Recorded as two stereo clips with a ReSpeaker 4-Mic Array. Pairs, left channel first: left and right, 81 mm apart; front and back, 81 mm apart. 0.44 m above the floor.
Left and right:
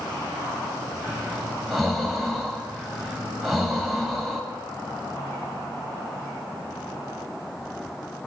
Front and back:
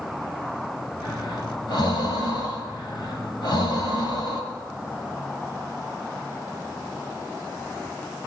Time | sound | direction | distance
1.0 | breathing | straight ahead | 2 m